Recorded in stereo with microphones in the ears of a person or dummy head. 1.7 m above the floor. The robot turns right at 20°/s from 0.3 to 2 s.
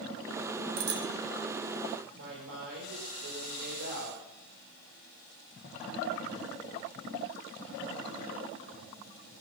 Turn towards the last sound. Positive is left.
turn(degrees=-75)  # may be behind; listen again after turning